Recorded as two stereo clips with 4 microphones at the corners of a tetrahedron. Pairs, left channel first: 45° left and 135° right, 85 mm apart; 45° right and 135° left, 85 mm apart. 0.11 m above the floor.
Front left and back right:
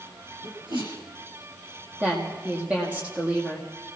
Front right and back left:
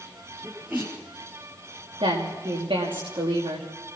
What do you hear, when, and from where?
0.4 s a sneeze: 150° right, 8.5 m
2.0 s a woman speaking: 150° left, 6 m